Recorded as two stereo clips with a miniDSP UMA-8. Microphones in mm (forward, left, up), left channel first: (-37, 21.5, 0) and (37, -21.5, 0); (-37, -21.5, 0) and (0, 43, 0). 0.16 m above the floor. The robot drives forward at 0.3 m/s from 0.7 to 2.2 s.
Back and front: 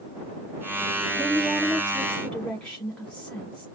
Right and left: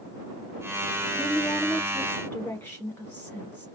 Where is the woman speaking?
110° right, 1.0 m; by 3.6 s 145° right, 1.1 m.